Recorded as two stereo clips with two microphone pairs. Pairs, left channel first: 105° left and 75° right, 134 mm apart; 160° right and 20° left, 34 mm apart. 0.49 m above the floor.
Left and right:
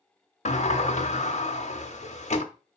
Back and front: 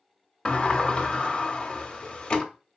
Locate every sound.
0.5 s a sliding door: 140° left, 0.6 m